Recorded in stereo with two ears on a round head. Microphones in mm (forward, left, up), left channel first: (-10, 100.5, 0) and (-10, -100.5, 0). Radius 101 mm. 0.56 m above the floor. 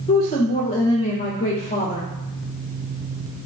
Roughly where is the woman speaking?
Left.